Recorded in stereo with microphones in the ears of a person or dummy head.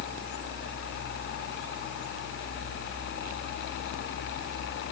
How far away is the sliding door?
No sliding door in this recording.